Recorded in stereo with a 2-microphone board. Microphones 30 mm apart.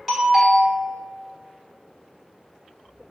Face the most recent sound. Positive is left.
turn(degrees=-5)  # may be behind; listen again after turning